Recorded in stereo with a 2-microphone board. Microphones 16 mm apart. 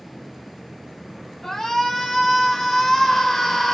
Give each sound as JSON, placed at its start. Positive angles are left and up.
{"t": 1.4, "sound": "a shout", "side_deg": 20, "distance_m": 1.5}